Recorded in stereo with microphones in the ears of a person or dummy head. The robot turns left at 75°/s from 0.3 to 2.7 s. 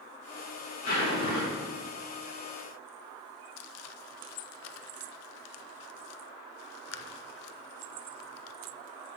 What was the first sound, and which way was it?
A zipper, 135° left.